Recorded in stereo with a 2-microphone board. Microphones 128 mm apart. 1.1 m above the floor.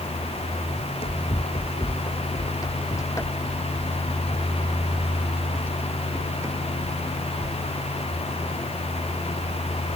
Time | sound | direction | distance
0.8 | running footsteps | 50° left (ahead or behind) | ?